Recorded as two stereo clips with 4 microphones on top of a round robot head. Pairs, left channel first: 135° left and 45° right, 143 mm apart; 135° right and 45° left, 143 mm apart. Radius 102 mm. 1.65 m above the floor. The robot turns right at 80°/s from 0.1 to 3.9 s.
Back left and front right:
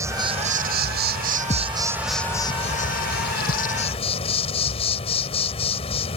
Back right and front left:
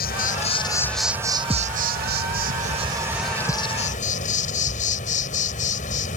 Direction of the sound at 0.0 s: 115° right.